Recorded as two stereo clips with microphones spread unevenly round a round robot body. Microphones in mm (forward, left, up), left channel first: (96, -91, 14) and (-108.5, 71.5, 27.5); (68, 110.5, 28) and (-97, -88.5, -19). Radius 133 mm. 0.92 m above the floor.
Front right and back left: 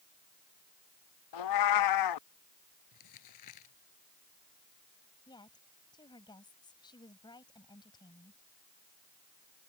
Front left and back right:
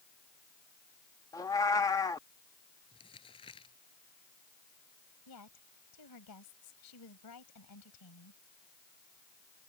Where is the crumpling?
20° right.